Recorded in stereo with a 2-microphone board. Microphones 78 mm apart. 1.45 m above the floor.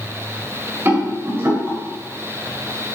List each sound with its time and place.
0.8 s a rattle: 30° right (ahead or behind), 2.0 m